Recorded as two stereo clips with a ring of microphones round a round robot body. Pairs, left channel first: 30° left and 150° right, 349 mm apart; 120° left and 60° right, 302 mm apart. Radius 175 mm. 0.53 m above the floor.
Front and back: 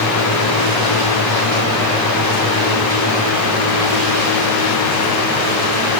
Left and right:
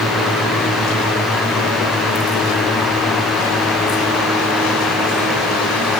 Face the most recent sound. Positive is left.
No sound to turn to.